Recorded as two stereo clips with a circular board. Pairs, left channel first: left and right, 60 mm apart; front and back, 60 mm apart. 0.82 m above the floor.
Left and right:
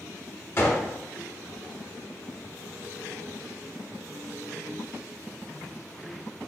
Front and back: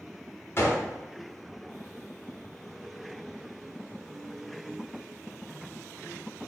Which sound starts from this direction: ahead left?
A gunshot, at 0.6 s.